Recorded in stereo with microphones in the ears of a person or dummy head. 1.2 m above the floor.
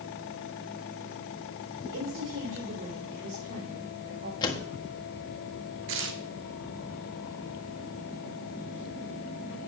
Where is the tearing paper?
70° right (ahead or behind), 1.1 m.